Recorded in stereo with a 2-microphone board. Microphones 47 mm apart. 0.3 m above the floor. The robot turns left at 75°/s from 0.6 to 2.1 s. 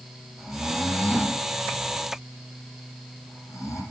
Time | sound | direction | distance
0.4 | snoring | 10° right (ahead or behind) | 7.5 m